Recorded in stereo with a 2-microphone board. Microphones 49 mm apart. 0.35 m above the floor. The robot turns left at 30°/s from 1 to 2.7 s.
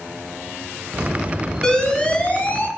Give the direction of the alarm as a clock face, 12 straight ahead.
7 o'clock.